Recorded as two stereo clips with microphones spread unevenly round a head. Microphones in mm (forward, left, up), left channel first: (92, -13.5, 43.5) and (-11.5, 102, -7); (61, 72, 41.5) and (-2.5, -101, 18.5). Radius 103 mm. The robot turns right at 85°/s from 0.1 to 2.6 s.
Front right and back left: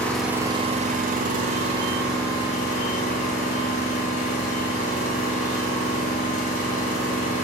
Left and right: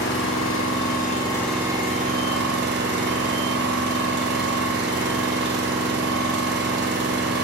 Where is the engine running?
45° left, 1.4 m; by 7.5 s 105° right, 1.4 m.